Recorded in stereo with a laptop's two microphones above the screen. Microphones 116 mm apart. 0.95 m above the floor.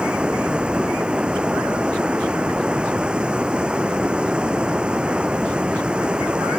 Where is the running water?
10° right (ahead or behind).